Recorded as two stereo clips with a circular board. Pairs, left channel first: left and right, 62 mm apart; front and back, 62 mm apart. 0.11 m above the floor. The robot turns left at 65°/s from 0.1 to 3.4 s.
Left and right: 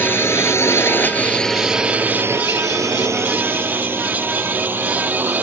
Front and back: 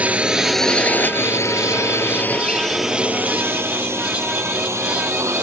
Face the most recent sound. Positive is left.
turn(degrees=-150)